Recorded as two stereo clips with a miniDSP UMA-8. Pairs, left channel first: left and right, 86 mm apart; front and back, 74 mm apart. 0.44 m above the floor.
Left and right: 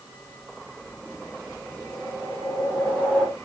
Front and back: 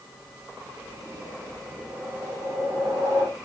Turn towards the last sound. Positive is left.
turn(degrees=-170)